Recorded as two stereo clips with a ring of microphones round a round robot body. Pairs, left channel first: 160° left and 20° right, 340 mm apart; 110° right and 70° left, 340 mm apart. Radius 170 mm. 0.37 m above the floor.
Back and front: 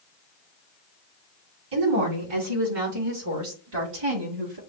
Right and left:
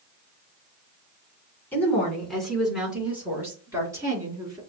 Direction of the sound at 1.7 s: 30° right.